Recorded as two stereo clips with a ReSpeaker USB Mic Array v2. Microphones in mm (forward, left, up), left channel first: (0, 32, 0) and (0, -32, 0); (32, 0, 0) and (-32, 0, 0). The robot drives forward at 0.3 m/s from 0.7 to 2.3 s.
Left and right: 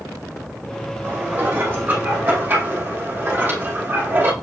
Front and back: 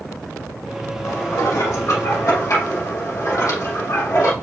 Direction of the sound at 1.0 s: 30° right.